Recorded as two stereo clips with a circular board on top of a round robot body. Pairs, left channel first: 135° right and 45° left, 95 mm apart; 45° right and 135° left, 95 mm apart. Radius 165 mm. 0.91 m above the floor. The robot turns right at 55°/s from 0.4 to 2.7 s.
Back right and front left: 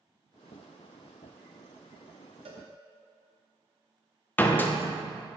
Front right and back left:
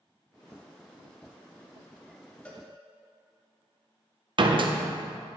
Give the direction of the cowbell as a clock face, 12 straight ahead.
11 o'clock.